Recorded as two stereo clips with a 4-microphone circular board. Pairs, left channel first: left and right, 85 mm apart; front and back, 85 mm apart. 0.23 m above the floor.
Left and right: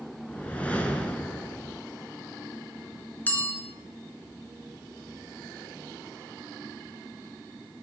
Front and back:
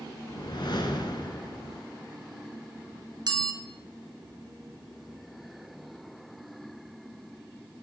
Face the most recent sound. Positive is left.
turn(degrees=155)